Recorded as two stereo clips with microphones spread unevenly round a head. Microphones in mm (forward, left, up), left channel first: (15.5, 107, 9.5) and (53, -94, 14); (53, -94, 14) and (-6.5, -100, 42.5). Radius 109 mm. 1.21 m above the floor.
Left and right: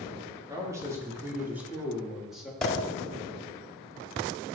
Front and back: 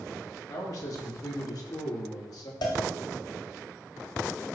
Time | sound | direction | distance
0.5 | a man speaking | 5° right | 4 m
2.6 | a cowbell | 15° left | 2.5 m